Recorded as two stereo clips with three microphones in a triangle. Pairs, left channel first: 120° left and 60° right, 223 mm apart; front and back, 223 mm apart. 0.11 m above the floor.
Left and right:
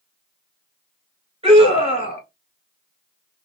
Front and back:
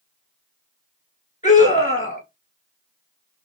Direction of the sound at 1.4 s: 20° right.